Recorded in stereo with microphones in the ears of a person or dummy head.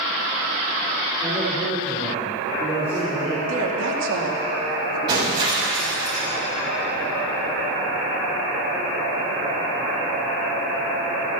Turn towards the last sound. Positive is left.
turn(degrees=-30)  # may be behind; listen again after turning